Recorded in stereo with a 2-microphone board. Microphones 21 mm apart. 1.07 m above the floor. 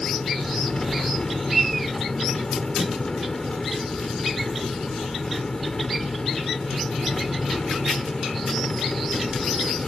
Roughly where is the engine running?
Left.